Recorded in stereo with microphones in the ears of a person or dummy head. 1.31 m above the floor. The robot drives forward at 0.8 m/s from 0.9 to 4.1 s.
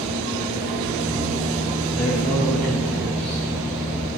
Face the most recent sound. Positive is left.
turn(degrees=5)  # may be behind; listen again after turning